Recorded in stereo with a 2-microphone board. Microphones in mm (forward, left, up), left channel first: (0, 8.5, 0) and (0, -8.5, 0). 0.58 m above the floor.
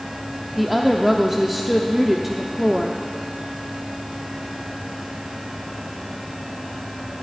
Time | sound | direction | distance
0.6 | a woman speaking | 10° right (ahead or behind) | 0.8 m